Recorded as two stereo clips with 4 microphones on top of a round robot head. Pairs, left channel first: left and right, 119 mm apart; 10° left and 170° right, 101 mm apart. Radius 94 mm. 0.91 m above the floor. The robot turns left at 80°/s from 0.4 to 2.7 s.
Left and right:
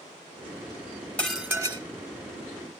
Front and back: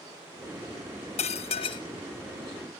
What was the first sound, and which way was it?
Dishes clattering, 10° left.